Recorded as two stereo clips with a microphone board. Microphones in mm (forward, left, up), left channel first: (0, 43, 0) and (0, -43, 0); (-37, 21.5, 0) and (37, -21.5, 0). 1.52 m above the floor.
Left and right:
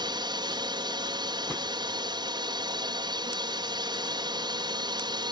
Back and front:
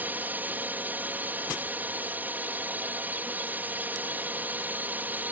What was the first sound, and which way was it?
A drone, 95° right.